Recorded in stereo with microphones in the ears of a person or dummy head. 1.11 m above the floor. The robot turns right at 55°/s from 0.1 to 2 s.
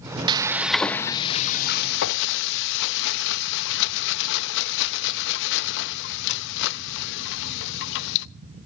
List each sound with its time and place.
0.3 s frying: 25° right, 0.7 m; by 8.3 s 70° left, 0.7 m